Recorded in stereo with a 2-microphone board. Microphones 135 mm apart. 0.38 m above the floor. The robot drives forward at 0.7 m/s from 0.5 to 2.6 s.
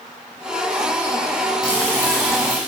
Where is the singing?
No singing in this recording.